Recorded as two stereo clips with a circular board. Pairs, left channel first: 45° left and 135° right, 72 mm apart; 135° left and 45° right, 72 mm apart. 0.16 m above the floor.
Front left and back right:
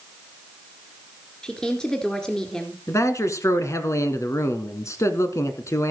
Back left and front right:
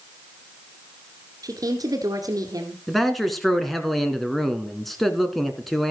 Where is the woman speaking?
35° right, 2 m.